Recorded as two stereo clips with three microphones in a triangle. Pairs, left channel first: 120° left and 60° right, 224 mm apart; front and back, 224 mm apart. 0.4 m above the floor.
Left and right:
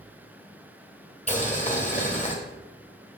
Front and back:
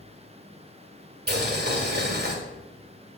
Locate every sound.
1.3 s boiling: 165° left, 2 m